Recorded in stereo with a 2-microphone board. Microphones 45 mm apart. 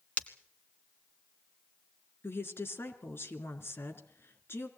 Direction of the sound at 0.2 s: 35° left (ahead or behind).